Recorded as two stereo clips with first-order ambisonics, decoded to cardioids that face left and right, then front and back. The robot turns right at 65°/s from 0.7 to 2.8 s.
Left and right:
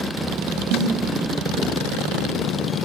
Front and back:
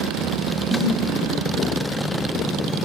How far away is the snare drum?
About 4.5 m.